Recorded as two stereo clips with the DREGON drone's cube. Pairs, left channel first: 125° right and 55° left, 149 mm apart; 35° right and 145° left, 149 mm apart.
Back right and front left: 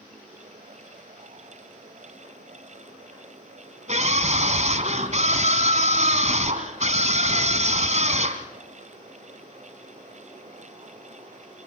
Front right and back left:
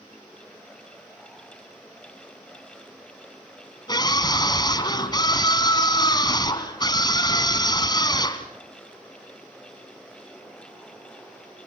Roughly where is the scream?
Ahead left.